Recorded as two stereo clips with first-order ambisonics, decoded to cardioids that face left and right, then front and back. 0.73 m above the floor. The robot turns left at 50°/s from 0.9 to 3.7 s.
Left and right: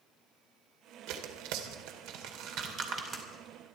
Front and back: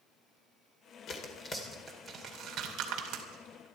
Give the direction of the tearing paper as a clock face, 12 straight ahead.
2 o'clock.